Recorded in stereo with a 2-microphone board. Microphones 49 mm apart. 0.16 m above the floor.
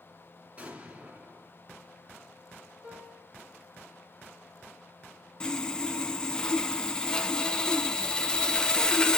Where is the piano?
25° right (ahead or behind), 2.5 m.